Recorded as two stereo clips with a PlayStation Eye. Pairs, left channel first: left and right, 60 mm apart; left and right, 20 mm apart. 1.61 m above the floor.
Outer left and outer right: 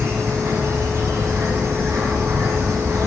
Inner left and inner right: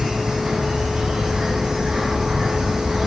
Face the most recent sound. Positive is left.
turn(degrees=-55)  # may be behind; listen again after turning